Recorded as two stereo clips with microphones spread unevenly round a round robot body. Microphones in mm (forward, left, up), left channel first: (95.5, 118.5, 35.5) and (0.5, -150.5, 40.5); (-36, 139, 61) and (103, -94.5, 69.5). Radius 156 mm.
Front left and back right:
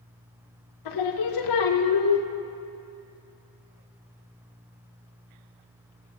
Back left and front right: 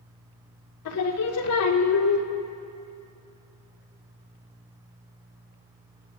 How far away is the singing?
About 0.8 m.